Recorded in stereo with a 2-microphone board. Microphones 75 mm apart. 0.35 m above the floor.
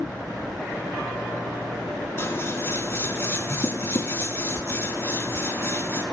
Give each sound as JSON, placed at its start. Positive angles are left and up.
{"t": 2.2, "sound": "scissors", "side_deg": 35, "distance_m": 3.0}